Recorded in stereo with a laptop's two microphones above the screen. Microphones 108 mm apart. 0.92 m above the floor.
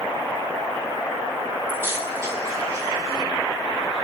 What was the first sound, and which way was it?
Keys jangling, 20° right (ahead or behind).